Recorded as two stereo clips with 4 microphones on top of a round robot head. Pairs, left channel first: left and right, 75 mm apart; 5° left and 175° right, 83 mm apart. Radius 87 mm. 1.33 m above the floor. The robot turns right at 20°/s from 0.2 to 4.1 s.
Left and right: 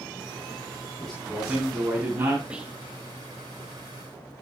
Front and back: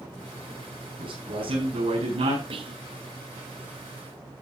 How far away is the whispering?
About 2 m.